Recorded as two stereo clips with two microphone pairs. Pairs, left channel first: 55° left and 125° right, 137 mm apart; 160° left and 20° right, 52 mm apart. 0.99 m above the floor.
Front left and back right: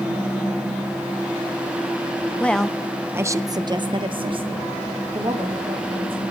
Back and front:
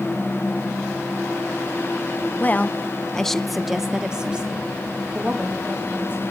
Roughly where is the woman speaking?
Behind left.